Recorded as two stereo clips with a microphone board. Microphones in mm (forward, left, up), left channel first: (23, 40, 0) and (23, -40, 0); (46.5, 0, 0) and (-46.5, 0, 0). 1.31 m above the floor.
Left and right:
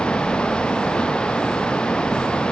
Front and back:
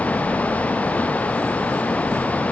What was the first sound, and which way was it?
Only background noise.